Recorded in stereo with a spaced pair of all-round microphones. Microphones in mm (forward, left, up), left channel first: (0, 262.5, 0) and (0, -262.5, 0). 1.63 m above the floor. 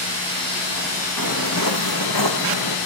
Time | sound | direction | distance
1.2 | footsteps | 35° left (ahead or behind) | 4 m